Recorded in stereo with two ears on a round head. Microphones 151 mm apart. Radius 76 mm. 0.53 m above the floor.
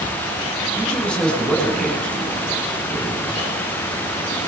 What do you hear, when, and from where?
0.8 s a man speaking: 5° left (ahead or behind), 5 m